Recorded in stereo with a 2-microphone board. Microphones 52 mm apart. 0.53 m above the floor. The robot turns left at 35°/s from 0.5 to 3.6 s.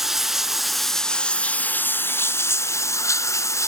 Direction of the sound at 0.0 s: 175° right.